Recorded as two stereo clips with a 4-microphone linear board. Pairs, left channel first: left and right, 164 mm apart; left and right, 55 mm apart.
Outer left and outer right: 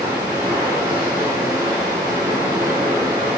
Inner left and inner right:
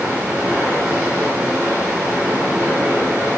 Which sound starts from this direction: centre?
Running water, at 0.0 s.